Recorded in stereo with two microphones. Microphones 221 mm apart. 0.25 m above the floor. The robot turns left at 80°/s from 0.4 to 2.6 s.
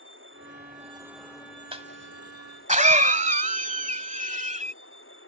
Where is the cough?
25° right (ahead or behind); by 4.7 s 35° right (ahead or behind).